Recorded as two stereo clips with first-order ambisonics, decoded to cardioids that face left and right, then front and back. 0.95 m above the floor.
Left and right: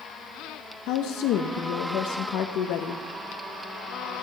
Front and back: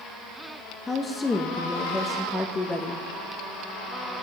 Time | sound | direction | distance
0.9 | a woman speaking | 75° left | 0.7 m